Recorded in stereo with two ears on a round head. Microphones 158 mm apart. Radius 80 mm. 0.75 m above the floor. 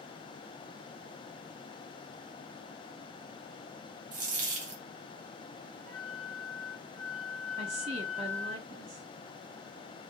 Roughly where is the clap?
I don't hear a clap.